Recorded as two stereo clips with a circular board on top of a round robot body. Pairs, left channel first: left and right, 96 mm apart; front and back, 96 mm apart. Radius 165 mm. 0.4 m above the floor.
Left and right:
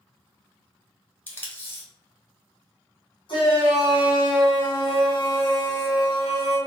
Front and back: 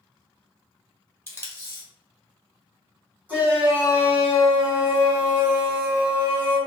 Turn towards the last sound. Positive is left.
turn(degrees=110)